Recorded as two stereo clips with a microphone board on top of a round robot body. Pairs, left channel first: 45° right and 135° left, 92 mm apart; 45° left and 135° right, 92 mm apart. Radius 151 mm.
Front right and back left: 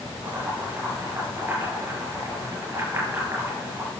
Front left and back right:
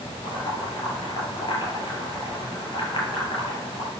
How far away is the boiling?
About 7 m.